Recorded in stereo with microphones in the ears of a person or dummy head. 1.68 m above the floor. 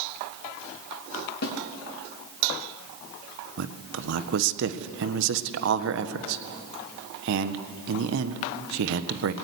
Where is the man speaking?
65° right (ahead or behind), 1.4 m.